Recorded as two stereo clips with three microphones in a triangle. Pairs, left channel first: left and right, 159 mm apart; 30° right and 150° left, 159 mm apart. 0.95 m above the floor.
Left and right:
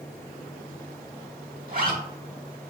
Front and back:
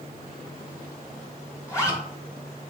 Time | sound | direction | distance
1.7 | a zipper | 100° right | 1.1 m